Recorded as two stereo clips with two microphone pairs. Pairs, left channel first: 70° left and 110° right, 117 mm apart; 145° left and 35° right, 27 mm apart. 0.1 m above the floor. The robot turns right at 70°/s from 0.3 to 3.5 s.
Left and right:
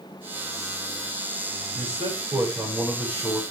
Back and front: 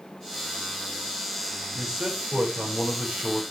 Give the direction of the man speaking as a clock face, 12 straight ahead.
3 o'clock.